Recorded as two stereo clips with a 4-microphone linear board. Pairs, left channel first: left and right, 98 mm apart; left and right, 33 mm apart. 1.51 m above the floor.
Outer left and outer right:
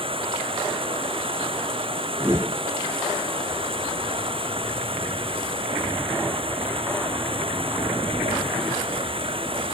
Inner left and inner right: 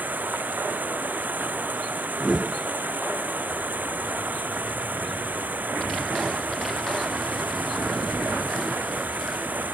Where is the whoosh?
25° right (ahead or behind).